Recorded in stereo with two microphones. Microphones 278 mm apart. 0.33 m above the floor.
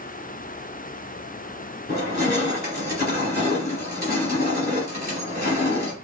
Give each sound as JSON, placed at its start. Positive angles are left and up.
{"t": 1.9, "sound": "crushing", "side_deg": 35, "distance_m": 2.0}